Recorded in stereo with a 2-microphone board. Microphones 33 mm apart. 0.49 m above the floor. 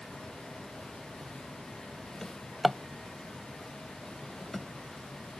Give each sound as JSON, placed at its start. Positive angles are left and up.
{"t": 2.2, "sound": "a drawer", "side_deg": 10}